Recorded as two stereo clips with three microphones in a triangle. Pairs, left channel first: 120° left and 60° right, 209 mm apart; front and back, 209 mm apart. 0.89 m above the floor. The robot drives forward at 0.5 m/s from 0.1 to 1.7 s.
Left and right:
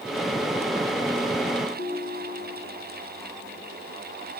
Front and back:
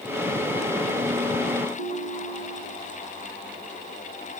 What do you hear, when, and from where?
1.8 s a ringtone: 160° left, 4 m